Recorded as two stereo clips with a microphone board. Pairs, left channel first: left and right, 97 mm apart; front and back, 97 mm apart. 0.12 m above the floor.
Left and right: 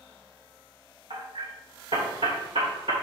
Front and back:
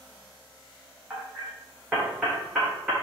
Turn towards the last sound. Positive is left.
turn(degrees=-105)